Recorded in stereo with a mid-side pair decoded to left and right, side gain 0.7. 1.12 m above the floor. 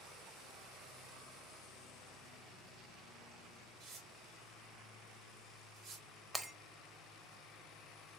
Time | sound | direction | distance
3.8 | tearing paper | 55° right | 2.5 m
6.3 | breaking glass | 10° right | 0.7 m